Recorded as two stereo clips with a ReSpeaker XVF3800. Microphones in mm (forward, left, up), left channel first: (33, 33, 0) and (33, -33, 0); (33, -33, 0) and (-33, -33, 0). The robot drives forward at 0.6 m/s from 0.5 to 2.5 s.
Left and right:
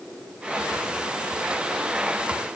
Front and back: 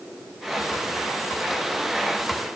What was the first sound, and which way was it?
Only background noise.